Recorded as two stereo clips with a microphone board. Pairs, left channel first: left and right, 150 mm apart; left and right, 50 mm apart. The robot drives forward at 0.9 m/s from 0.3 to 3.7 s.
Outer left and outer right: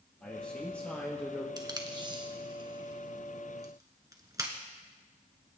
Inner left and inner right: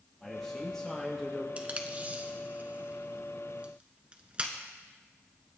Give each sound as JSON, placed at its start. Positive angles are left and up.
{"t": 0.2, "sound": "a man speaking", "side_deg": 10, "distance_m": 3.5}
{"t": 1.6, "sound": "tape being pulled", "side_deg": -25, "distance_m": 1.5}